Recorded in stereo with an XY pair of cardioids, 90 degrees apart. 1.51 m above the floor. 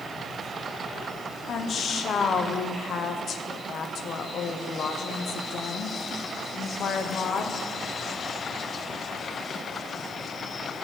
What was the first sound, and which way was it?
A woman speaking, 60° left.